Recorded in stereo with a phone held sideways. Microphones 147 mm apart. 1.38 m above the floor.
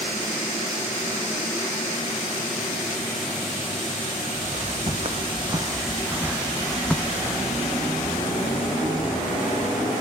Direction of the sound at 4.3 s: 55° right (ahead or behind).